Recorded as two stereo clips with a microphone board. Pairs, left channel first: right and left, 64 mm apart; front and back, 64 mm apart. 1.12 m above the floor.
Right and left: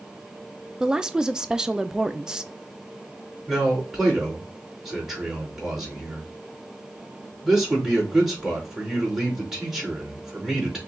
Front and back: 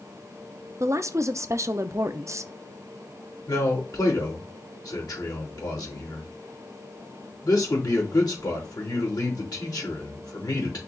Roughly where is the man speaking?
Ahead.